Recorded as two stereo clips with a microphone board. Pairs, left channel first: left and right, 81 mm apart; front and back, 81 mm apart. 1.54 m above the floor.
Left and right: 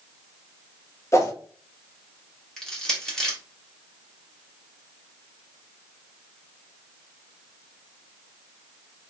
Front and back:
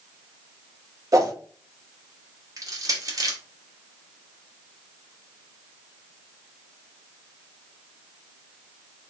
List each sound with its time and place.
1.1 s a whoosh: 140° left, 1.0 m
2.6 s crushing: 170° left, 1.2 m